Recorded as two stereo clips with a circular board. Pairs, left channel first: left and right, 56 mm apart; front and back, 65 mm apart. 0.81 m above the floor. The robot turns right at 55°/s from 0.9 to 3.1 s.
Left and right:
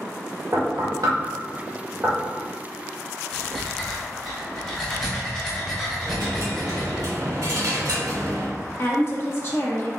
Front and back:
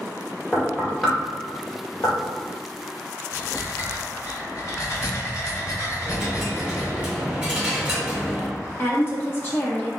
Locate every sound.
0.5 s knocking: 90° right, 1.5 m; by 2.2 s 20° right, 1.5 m
3.3 s breathing: 15° left, 1.4 m
6.0 s a dropped coin: 105° right, 1.4 m
8.8 s a woman speaking: 50° left, 1.2 m